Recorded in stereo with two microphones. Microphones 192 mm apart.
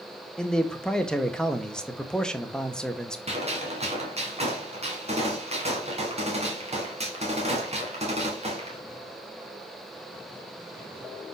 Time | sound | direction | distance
0.4 | a man speaking | 5° left (ahead or behind) | 0.9 m
3.3 | a gunshot | 35° right (ahead or behind) | 2.5 m